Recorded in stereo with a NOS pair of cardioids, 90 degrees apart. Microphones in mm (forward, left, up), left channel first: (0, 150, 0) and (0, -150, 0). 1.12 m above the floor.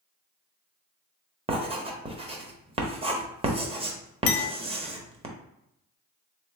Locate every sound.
1.5 s writing: 20° right, 1.0 m
4.3 s a clink: 55° left, 0.8 m